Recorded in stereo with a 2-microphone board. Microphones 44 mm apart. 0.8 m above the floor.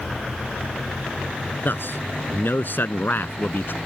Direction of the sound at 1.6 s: 55° left (ahead or behind).